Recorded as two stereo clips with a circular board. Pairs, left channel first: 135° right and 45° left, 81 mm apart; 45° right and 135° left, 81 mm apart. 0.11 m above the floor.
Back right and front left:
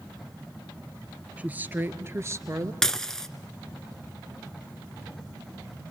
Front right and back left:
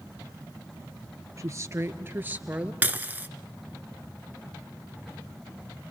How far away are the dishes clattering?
About 0.8 m.